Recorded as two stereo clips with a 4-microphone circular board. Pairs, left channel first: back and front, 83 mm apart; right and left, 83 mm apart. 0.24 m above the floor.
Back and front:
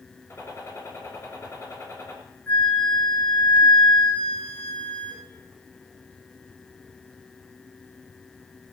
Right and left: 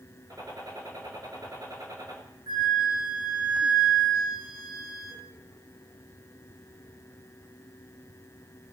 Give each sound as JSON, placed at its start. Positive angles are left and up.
{"t": 0.3, "sound": "a gunshot", "azimuth_deg": 125, "distance_m": 5.0}
{"t": 2.5, "sound": "a flute", "azimuth_deg": 110, "distance_m": 5.5}